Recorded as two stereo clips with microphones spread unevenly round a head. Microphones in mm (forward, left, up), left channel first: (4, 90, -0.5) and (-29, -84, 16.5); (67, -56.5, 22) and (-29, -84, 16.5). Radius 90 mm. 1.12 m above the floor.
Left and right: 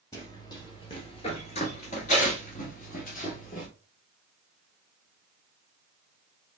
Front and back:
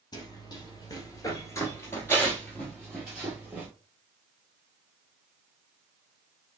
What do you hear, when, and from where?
0.1 s running footsteps: 5° left, 1.5 m; by 3.7 s 115° left, 1.5 m